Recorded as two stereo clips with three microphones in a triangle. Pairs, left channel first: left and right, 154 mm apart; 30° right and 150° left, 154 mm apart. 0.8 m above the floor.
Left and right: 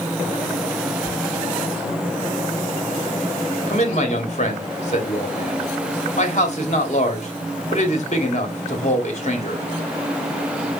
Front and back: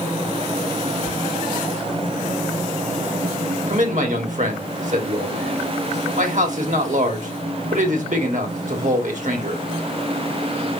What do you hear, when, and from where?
1.1 s whispering: 135° left, 1.5 m
3.7 s a man speaking: 125° left, 1.7 m